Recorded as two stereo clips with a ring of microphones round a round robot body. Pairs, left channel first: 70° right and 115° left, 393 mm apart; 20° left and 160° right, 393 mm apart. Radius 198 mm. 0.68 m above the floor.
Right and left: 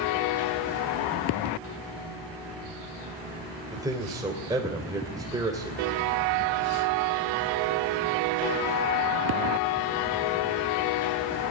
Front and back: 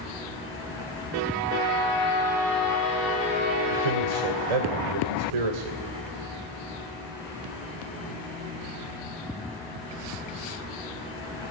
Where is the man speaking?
165° right, 3 m.